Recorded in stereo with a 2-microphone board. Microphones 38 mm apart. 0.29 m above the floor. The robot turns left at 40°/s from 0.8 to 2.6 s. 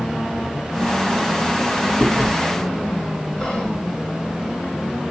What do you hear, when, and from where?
2.0 s chewing: 20° left (ahead or behind), 1.2 m
3.4 s whispering: 20° left (ahead or behind), 1.0 m